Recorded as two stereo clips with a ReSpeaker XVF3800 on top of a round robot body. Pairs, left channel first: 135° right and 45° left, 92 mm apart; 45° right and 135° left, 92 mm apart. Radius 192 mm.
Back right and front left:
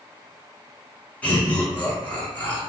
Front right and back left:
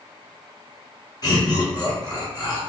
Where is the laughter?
65° right, 1.7 m.